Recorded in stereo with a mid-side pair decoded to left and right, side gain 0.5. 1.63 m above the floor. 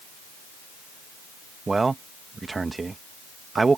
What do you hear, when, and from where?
1.7 s a man speaking: 25° right